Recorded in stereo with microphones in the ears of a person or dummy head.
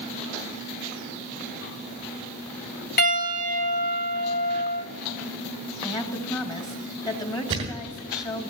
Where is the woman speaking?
20° left (ahead or behind), 1.7 m.